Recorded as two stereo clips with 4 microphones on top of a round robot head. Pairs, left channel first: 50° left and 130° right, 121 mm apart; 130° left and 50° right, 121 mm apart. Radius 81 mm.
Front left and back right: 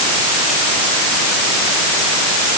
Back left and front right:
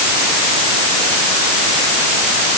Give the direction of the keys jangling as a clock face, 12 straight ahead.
No keys jangling in this recording.